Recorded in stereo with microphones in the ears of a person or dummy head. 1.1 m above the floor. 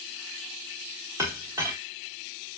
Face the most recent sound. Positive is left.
turn(degrees=-15)  # may be behind; listen again after turning